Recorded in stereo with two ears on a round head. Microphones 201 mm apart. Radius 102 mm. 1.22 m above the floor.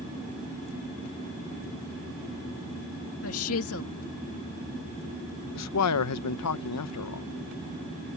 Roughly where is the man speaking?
Left.